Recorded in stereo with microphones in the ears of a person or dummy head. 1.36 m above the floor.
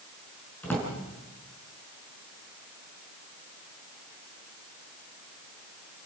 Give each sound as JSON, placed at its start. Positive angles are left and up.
{"t": 0.6, "sound": "a drawer", "side_deg": 10, "distance_m": 6.0}